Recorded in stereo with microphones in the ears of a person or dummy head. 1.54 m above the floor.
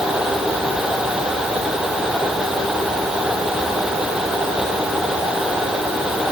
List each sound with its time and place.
Only background noise.